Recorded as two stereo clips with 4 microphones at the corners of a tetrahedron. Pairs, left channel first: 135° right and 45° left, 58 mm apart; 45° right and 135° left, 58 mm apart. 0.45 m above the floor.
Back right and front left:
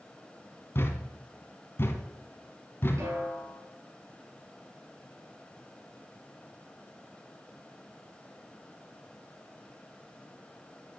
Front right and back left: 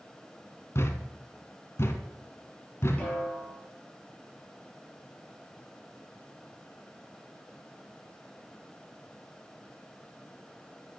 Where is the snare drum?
15° left, 4 m.